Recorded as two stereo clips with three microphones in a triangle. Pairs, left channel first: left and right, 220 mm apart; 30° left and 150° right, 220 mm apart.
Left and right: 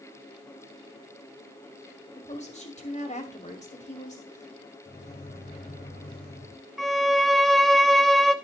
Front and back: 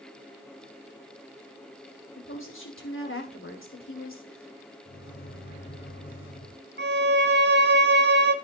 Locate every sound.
2.2 s a woman speaking: 35° left, 2 m
4.8 s a microwave: 50° left, 2 m
6.8 s a violin: straight behind, 0.7 m